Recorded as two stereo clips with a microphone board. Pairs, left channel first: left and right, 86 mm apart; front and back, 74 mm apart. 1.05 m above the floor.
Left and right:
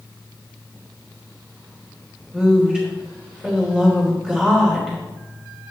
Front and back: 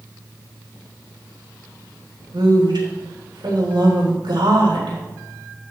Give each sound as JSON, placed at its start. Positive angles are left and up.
{"t": 2.3, "sound": "a woman speaking", "azimuth_deg": -170, "distance_m": 3.0}